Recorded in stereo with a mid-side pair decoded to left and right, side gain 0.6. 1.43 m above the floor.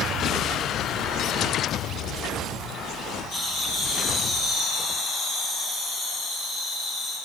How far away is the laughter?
About 6.5 m.